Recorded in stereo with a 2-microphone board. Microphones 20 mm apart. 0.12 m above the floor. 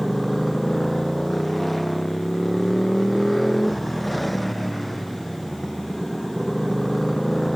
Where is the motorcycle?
Centre (ahead or behind).